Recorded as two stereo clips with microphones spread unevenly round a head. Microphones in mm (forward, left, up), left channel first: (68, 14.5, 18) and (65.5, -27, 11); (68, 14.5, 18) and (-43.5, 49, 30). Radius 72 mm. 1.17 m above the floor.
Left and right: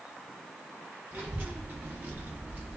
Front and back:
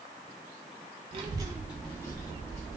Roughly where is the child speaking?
Behind.